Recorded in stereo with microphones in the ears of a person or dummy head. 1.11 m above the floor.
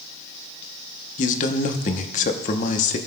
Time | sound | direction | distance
1.2 | a man speaking | 40° left (ahead or behind) | 1.0 m